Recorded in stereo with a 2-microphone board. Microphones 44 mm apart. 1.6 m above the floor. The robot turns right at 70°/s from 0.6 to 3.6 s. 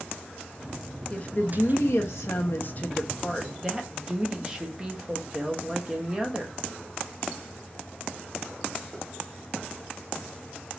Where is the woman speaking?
25° left, 0.8 m; by 6.5 s 160° right, 0.8 m.